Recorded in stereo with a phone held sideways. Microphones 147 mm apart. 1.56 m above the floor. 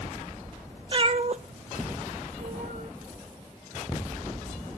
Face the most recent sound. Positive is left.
turn(degrees=-65)  # may be behind; listen again after turning